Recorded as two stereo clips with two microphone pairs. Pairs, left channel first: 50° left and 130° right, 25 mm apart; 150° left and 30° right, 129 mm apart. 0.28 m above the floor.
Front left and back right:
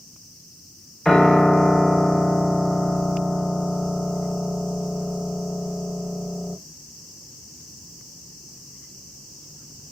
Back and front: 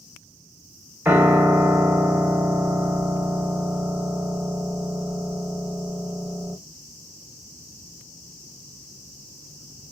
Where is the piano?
15° left, 0.6 m.